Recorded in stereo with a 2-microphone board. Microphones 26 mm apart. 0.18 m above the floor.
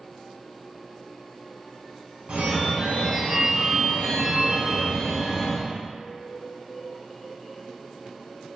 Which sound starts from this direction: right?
A phone ringing, at 2.3 s.